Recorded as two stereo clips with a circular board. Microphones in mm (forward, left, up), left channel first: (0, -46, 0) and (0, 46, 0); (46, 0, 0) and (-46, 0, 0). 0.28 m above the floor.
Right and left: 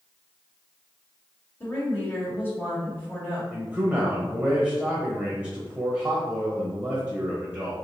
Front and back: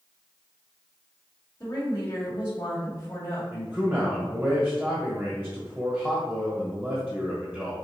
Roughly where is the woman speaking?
Ahead right.